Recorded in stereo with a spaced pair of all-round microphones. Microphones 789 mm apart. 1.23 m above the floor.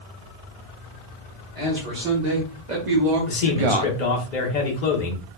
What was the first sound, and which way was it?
A man speaking, 55° right (ahead or behind).